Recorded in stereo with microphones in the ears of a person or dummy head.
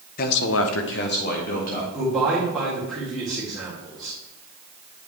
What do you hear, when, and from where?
0.2 s a man speaking: 45° left (ahead or behind), 0.7 m; by 1.8 s 35° left (ahead or behind), 1.9 m
1.9 s a man speaking: centre (ahead or behind), 2 m